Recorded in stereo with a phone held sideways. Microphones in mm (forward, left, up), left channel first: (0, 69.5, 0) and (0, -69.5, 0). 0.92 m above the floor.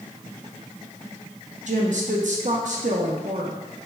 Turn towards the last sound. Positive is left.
turn(degrees=-60)  # may be behind; listen again after turning